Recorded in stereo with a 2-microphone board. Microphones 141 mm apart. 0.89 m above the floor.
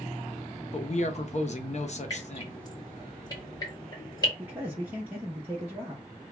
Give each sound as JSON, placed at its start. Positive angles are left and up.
{"t": 0.7, "sound": "a man speaking", "side_deg": 55, "distance_m": 0.6}
{"t": 2.1, "sound": "dripping", "side_deg": 25, "distance_m": 1.7}
{"t": 4.4, "sound": "a man speaking", "side_deg": -15, "distance_m": 0.8}